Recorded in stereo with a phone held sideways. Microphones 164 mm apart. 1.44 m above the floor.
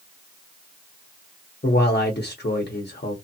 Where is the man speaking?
85° left, 0.8 m.